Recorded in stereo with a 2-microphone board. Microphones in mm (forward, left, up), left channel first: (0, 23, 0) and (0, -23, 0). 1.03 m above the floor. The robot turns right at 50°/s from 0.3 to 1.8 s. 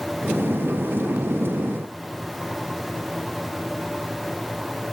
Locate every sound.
Only background noise.